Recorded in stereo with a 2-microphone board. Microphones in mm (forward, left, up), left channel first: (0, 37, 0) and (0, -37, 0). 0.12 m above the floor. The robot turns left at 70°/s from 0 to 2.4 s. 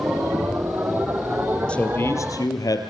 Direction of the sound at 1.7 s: 165° left.